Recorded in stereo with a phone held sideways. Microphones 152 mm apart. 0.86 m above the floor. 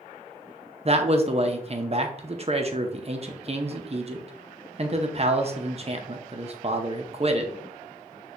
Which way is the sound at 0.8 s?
45° right (ahead or behind).